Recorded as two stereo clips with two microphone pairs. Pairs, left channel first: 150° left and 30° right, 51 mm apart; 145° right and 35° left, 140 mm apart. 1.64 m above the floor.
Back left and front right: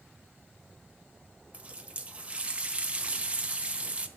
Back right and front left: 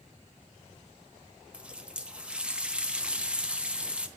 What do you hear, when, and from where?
1.5 s a running tap: 45° right, 0.7 m